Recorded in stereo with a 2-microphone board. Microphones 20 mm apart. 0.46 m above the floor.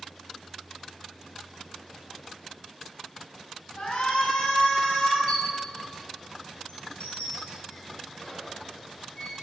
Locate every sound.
3.8 s a shout: 65° left (ahead or behind), 4 m
5.3 s a squeak: 65° left (ahead or behind), 4 m